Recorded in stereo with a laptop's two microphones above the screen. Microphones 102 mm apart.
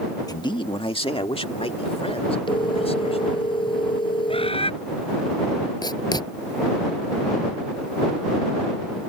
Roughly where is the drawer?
No drawer in this recording.